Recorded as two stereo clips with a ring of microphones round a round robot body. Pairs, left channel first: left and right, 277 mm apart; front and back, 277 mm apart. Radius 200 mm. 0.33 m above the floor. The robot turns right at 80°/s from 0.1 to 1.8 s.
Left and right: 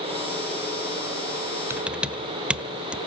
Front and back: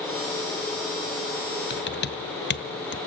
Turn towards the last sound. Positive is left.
turn(degrees=-5)